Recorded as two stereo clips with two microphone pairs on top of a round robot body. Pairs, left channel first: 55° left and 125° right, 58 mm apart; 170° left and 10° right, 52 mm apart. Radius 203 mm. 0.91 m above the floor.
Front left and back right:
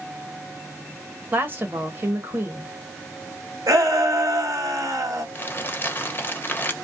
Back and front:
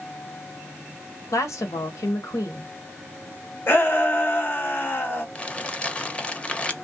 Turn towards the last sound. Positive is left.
turn(degrees=100)